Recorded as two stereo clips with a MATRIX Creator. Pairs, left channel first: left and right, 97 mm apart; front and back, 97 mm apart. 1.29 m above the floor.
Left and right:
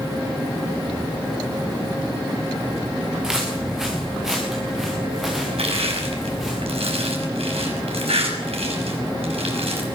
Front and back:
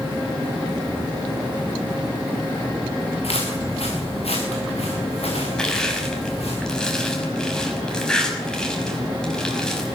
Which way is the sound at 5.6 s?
85° right.